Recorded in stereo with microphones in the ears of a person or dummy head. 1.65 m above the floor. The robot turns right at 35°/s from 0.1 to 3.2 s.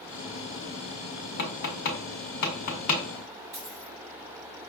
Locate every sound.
1.4 s tapping: 50° left (ahead or behind), 0.8 m; by 3.0 s 35° left (ahead or behind), 0.8 m
3.5 s a dropped coin: 35° right (ahead or behind), 1.4 m